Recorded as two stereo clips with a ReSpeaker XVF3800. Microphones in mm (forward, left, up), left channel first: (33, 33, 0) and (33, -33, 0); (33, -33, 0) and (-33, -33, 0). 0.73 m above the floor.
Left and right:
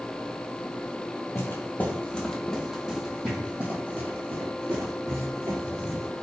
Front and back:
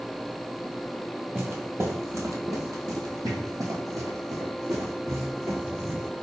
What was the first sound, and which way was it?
Footsteps, 130° left.